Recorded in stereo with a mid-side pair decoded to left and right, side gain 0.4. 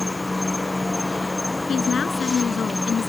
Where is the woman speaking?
50° left.